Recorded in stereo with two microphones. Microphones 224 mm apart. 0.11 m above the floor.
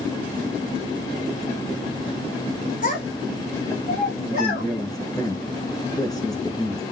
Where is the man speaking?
15° left (ahead or behind), 1.1 m.